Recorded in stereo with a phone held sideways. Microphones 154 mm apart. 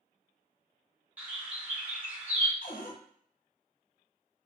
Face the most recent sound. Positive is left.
turn(degrees=65)  # may be behind; listen again after turning